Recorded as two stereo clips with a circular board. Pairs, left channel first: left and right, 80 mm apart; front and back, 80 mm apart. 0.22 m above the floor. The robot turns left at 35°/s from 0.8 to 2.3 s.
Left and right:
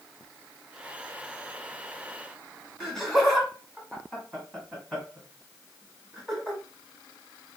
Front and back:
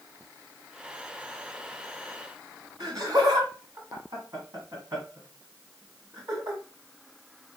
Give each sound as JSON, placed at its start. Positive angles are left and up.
{"t": 2.8, "sound": "laughter", "azimuth_deg": 165, "distance_m": 1.3}